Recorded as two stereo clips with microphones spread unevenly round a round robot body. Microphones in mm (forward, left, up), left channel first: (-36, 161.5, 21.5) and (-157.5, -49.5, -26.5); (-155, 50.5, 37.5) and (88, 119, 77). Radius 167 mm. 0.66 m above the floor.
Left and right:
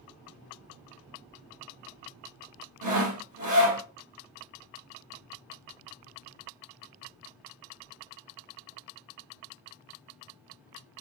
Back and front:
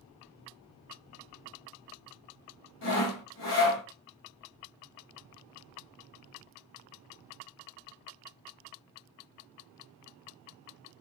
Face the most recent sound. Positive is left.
turn(degrees=-120)